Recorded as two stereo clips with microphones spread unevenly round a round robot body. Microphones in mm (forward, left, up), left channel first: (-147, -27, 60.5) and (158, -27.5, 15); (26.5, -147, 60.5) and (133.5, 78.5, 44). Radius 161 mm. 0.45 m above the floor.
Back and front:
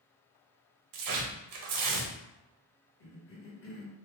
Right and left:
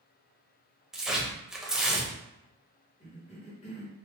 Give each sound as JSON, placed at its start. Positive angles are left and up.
{"t": 0.9, "sound": "tearing paper", "azimuth_deg": -25, "distance_m": 0.7}
{"t": 3.0, "sound": "a cough", "azimuth_deg": -165, "distance_m": 1.0}